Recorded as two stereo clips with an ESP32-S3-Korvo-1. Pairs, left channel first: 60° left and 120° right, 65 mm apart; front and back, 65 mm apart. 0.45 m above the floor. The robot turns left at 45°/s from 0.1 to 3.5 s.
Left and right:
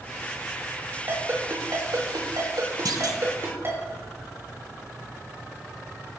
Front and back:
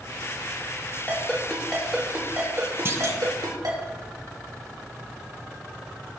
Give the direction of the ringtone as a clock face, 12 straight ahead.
2 o'clock.